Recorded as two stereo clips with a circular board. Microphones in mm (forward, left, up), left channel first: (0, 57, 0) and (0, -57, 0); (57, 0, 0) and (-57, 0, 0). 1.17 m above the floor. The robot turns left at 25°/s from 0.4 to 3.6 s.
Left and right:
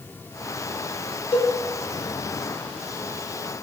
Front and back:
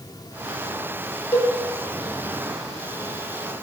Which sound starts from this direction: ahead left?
A cowbell, at 1.3 s.